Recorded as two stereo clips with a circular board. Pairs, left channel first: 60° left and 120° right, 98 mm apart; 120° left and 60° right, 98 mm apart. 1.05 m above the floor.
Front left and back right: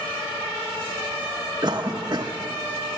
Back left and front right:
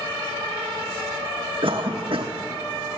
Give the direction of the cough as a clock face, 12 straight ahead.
3 o'clock.